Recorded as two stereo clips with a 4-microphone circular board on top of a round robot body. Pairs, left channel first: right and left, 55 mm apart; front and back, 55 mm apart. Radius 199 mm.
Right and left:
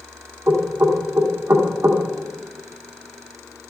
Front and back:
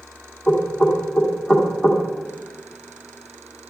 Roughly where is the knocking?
Left.